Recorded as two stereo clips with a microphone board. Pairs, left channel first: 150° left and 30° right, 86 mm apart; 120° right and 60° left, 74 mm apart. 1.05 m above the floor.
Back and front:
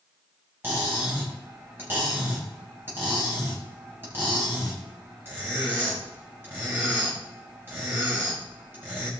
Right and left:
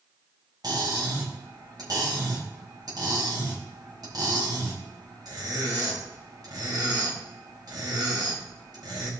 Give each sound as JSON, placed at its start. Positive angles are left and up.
{"t": 0.6, "sound": "cutlery clinking", "azimuth_deg": 35, "distance_m": 4.0}